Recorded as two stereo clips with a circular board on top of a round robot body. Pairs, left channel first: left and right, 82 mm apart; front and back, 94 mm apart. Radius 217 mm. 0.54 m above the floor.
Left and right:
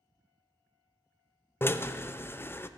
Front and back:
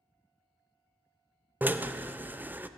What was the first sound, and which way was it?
A drill, 125° left.